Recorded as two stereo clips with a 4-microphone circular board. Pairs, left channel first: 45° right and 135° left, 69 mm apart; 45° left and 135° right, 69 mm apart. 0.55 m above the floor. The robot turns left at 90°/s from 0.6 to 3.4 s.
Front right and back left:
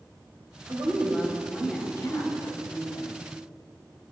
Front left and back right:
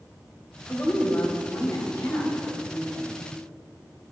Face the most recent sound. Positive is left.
turn(degrees=-125)